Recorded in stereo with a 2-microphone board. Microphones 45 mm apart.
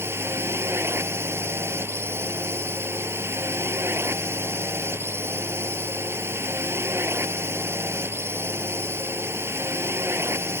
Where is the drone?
65° right (ahead or behind).